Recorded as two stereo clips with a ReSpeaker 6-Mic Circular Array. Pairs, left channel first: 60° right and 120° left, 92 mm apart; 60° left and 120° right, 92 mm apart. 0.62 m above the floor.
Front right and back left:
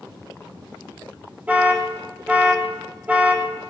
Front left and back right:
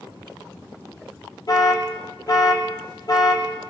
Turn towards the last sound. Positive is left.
turn(degrees=55)